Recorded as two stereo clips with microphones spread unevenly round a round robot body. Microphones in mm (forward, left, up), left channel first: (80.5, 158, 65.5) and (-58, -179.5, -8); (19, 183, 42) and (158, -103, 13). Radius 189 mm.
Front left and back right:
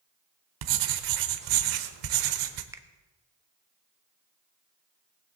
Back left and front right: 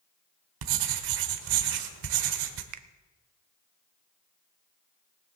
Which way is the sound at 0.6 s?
80° right.